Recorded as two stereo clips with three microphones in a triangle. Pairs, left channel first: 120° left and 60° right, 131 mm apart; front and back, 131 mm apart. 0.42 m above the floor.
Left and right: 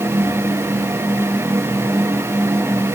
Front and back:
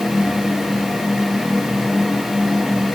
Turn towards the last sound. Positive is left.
No sound to turn to.